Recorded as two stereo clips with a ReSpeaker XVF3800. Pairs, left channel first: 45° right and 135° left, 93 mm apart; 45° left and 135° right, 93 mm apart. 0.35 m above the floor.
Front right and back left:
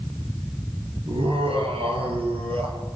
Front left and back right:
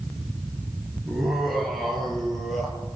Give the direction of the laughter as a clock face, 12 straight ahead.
7 o'clock.